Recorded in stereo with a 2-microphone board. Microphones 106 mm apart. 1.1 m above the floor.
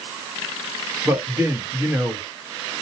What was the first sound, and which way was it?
A man speaking, 20° right (ahead or behind).